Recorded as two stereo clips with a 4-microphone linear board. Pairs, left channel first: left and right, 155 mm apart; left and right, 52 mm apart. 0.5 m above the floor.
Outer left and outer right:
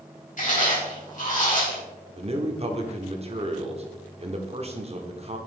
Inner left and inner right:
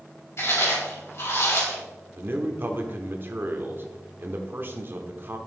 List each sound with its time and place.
0.4 s chewing: 55° left (ahead or behind), 3 m
2.2 s a man speaking: 40° right (ahead or behind), 1.0 m